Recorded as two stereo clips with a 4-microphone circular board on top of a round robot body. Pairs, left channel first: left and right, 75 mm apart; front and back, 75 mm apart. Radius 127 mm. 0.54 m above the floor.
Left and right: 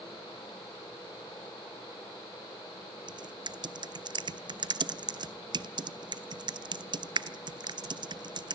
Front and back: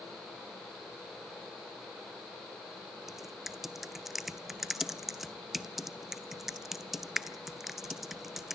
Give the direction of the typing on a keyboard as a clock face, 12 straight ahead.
3 o'clock.